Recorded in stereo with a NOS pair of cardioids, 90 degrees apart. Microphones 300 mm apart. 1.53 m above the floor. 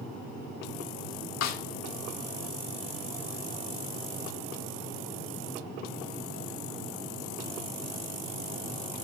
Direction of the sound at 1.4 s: 65° left.